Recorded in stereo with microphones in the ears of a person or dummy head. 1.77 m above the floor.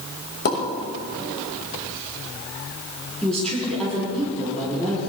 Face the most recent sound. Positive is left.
turn(degrees=5)  # may be behind; listen again after turning